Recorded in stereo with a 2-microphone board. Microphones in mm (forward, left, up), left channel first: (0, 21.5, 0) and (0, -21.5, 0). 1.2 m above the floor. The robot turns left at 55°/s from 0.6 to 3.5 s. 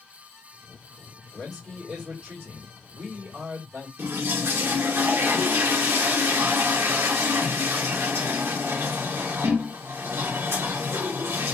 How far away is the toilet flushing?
About 1.1 m.